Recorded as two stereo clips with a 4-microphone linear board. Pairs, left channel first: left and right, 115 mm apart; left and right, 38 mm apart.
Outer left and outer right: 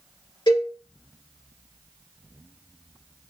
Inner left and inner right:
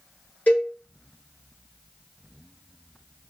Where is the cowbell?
40° left (ahead or behind), 1.6 m.